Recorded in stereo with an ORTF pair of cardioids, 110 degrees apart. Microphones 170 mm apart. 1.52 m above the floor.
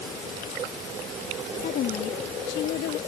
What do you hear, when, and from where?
1.6 s a woman speaking: 60° left; by 3.0 s 75° left